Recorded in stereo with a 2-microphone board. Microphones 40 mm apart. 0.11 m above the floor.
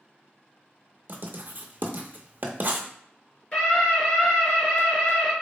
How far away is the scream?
About 1.6 m.